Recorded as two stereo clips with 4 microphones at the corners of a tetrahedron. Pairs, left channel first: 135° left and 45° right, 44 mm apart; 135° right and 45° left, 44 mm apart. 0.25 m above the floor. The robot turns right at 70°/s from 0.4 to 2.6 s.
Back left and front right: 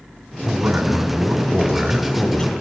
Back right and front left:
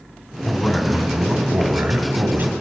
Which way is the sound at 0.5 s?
60° right.